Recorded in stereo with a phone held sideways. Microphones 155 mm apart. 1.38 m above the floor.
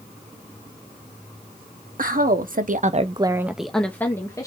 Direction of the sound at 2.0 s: 65° right (ahead or behind).